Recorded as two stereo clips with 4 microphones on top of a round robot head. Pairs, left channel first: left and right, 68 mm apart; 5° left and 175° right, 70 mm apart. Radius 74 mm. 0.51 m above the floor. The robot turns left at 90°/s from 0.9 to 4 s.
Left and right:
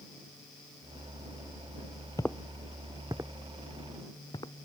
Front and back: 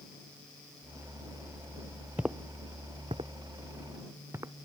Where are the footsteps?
125° left; by 4.5 s 135° left.